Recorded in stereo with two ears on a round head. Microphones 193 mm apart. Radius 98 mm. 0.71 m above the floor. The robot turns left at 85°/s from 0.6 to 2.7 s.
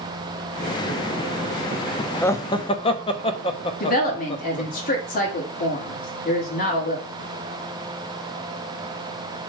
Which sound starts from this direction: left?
A woman speaking, at 3.8 s.